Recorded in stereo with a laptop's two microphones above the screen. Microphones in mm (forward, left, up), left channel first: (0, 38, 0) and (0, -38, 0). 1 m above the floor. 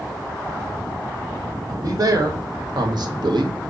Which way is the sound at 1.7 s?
50° right (ahead or behind).